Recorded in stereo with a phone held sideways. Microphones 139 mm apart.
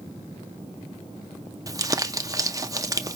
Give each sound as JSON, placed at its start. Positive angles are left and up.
{"t": 1.7, "sound": "crumpling", "side_deg": -25, "distance_m": 0.6}